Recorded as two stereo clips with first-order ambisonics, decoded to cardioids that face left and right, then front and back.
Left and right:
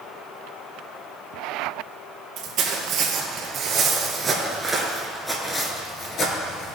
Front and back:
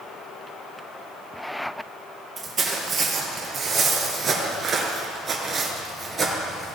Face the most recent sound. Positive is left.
turn(degrees=115)